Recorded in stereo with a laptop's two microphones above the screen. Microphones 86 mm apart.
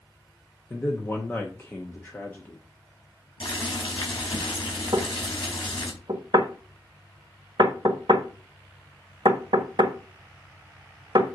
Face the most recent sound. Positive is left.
turn(degrees=-60)  # may be behind; listen again after turning